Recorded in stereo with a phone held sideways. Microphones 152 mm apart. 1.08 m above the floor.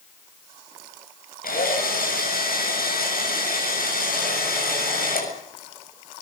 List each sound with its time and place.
1.4 s a drill: 75° left (ahead or behind), 7.5 m